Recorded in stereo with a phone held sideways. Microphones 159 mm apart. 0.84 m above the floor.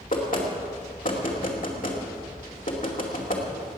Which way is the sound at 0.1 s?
60° left (ahead or behind).